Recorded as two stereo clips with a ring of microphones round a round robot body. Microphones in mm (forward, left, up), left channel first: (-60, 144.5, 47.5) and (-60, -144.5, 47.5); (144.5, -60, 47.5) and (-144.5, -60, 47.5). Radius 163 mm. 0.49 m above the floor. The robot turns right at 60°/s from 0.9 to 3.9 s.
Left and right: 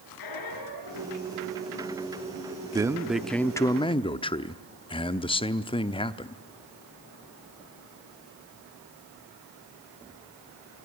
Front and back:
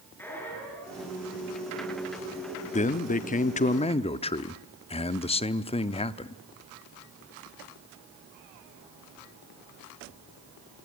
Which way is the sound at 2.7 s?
30° right.